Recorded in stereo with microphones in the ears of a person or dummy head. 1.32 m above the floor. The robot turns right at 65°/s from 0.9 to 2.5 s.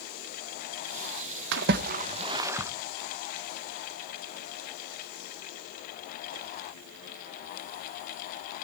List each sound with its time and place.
1.5 s a splash: 70° right (ahead or behind), 0.8 m; by 2.7 s 15° right (ahead or behind), 0.8 m